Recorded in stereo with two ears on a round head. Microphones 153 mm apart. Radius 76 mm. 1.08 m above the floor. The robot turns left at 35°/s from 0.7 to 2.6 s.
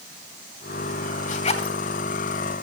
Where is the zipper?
45° left (ahead or behind), 2.5 m; by 1.8 s 30° left (ahead or behind), 2.5 m.